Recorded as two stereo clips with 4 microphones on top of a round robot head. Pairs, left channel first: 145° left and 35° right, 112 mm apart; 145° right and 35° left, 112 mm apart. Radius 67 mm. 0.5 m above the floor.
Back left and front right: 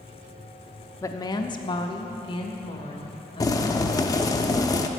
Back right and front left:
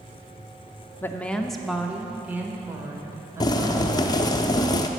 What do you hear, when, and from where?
1.0 s a woman speaking: 165° left, 0.7 m; by 4.4 s 100° left, 2.5 m
3.4 s boiling: 175° right, 0.7 m